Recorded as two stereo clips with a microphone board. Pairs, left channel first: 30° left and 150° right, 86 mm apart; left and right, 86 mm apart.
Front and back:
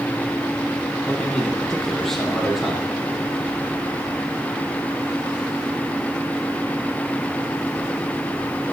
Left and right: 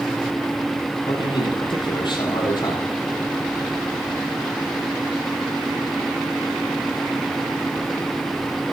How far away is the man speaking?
About 8 m.